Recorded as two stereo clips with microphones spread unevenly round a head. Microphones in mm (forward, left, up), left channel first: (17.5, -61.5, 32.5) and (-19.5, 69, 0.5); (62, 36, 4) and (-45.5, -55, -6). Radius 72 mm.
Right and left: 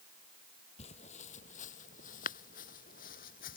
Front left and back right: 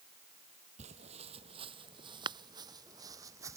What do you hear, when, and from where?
0.8 s footsteps: 100° right; by 3.6 s 70° right